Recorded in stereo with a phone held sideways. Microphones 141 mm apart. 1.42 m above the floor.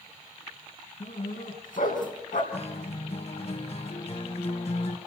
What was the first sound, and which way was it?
A dog barking, 70° left (ahead or behind).